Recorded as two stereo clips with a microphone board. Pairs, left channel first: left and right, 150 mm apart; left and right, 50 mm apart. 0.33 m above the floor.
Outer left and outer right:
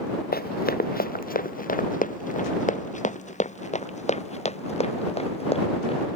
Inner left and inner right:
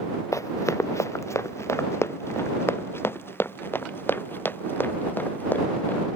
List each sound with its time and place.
0.3 s running footsteps: 80° left; by 6.1 s 40° left (ahead or behind)